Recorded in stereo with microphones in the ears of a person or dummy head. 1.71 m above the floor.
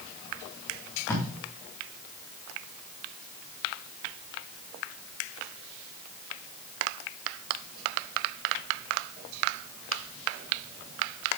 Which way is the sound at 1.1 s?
10° left (ahead or behind).